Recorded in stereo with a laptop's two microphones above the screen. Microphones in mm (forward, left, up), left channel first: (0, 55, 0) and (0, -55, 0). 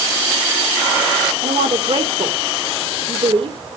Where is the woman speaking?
65° right (ahead or behind), 3 m.